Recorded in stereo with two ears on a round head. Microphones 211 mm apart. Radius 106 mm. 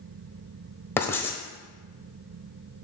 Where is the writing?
10° left (ahead or behind), 1.2 m.